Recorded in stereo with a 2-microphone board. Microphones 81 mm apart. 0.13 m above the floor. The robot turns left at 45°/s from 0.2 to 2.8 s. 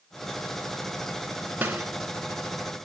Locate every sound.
1.6 s a snare drum: 20° right (ahead or behind), 0.8 m; by 1.9 s 15° right (ahead or behind), 0.8 m